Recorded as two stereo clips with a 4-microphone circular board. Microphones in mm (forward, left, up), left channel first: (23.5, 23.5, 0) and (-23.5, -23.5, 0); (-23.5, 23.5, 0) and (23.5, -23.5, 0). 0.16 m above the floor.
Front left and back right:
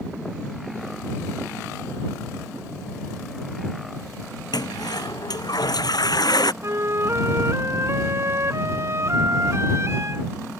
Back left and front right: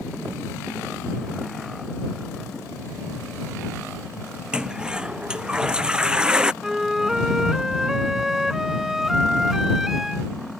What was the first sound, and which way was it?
A toilet flushing, 30° left.